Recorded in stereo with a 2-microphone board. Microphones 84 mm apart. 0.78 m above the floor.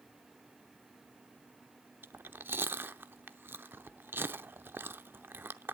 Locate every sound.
2.0 s chewing: 25° right (ahead or behind), 0.6 m